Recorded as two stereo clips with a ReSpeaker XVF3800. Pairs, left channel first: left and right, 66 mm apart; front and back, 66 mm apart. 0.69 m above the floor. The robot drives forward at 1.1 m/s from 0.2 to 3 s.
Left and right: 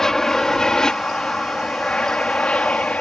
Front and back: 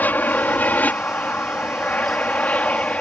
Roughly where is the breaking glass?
I don't hear breaking glass.